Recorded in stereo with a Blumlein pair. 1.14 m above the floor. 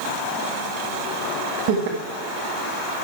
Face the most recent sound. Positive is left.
turn(degrees=-50)